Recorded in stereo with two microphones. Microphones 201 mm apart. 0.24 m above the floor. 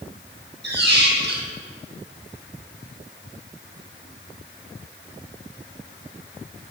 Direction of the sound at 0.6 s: 60° right (ahead or behind).